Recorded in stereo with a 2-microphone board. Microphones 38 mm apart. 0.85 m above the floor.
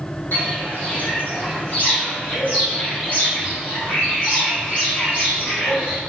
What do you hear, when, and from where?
0.3 s footsteps: 55° left (ahead or behind), 3 m; by 6.0 s 35° left (ahead or behind), 6 m